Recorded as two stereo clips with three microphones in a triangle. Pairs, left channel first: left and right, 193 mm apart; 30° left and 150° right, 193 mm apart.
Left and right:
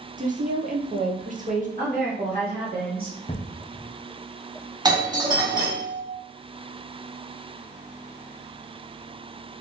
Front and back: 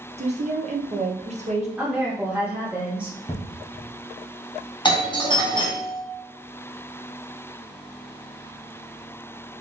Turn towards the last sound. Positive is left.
turn(degrees=-30)